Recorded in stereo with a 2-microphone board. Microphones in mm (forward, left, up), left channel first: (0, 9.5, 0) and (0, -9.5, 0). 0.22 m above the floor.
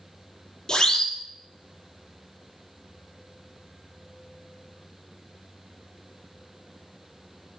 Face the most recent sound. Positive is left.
turn(degrees=30)  # may be behind; listen again after turning